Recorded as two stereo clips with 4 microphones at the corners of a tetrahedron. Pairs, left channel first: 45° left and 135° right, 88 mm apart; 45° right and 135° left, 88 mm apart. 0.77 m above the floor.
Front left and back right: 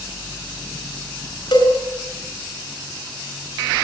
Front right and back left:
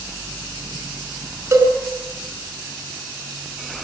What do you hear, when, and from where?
1.5 s a cowbell: 85° left, 5 m